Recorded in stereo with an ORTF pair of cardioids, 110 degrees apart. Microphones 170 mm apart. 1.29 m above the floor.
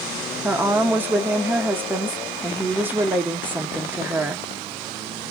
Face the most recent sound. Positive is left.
turn(degrees=-10)